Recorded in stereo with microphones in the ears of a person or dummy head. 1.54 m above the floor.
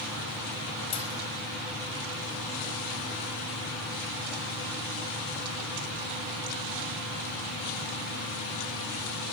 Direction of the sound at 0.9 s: 25° left (ahead or behind).